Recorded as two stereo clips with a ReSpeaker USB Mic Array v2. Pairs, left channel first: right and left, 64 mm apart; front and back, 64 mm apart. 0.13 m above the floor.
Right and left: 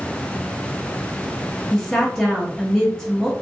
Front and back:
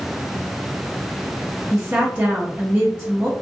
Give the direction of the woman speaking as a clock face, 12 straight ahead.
6 o'clock.